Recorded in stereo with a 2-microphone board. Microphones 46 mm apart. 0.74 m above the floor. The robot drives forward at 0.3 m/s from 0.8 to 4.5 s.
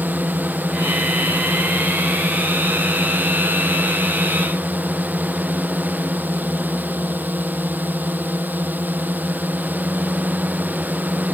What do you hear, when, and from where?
0.0 s a drone: 40° right (ahead or behind)